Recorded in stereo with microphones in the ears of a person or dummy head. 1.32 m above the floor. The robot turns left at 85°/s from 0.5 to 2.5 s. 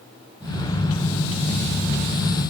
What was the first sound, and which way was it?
Only background noise.